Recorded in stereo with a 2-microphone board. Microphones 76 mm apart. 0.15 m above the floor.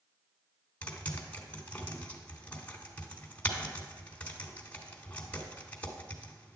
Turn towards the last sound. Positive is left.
turn(degrees=20)  # may be behind; listen again after turning